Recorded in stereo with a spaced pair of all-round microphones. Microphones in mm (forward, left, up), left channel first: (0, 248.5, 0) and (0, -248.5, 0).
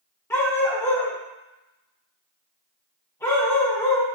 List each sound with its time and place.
0.3 s a dog barking: 5° left (ahead or behind), 1.2 m